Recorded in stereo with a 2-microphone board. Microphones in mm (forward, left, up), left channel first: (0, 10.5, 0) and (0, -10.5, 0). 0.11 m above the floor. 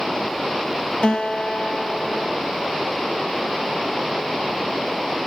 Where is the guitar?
60° left (ahead or behind), 0.6 m.